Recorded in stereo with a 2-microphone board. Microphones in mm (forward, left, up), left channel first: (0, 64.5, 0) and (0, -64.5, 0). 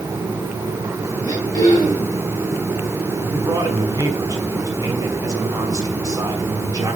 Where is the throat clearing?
30° left (ahead or behind), 6.5 m.